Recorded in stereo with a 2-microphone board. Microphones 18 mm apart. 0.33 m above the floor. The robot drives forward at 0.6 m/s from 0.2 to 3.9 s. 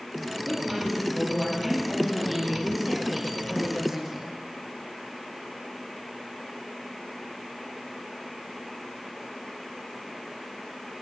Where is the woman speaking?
10° right (ahead or behind), 7.5 m.